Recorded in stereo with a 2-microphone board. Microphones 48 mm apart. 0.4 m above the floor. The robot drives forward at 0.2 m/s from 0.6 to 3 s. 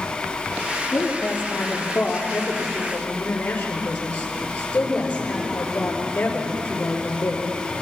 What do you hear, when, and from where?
0.9 s a woman speaking: 30° left (ahead or behind), 7.5 m; by 7.4 s 25° left (ahead or behind), 8 m